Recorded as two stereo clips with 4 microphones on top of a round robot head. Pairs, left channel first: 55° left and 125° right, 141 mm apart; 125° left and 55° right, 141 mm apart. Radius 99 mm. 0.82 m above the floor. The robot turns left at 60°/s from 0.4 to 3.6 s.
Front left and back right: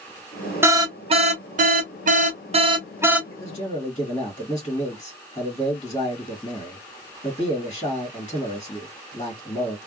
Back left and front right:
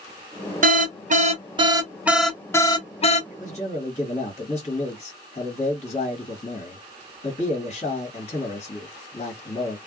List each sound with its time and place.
0.6 s an alarm: 50° right, 0.7 m; by 3.2 s 155° left, 0.7 m
3.3 s a man speaking: 120° left, 1.6 m; by 9.8 s 100° left, 1.6 m